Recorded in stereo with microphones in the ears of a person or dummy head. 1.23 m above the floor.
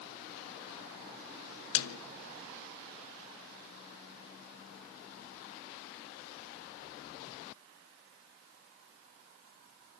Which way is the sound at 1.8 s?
75° left (ahead or behind).